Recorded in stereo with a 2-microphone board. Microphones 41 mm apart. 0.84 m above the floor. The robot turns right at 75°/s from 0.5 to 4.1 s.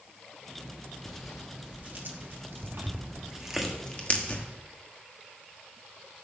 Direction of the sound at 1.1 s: 15° left (ahead or behind).